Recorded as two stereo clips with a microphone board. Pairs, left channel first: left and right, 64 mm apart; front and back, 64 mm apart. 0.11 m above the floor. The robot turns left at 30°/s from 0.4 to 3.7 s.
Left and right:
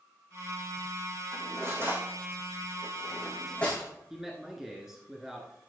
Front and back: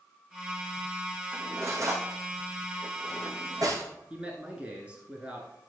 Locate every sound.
1.3 s cutlery clinking: 125° right, 4 m; by 3.9 s 160° left, 4 m
4.1 s a man speaking: 160° right, 1.3 m